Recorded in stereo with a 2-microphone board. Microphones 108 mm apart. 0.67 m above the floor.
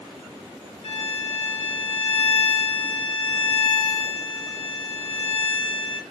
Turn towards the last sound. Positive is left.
turn(degrees=65)  # may be behind; listen again after turning